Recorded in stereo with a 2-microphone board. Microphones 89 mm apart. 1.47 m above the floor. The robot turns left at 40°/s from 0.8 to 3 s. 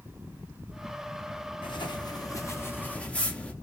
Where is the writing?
70° left, 0.6 m; by 3.5 s 15° left, 0.6 m.